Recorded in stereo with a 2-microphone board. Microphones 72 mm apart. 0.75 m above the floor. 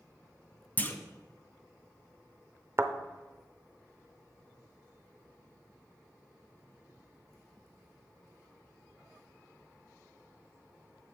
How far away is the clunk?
About 0.7 m.